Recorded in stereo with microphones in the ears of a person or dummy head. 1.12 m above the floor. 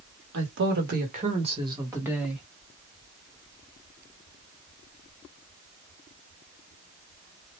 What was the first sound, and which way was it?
A woman speaking, 70° right (ahead or behind).